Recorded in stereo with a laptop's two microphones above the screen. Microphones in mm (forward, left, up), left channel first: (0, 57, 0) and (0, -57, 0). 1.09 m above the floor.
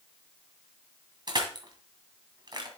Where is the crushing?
40° right (ahead or behind), 2.0 m.